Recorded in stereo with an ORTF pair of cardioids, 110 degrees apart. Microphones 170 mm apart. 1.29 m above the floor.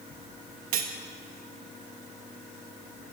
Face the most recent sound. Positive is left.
turn(degrees=-60)